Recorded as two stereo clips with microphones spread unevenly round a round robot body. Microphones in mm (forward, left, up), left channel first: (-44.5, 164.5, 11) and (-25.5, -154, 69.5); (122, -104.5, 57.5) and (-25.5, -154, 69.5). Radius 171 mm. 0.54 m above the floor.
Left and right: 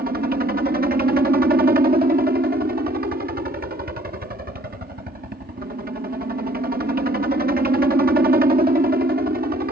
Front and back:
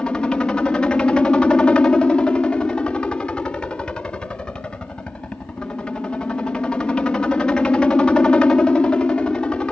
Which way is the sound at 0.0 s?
50° right.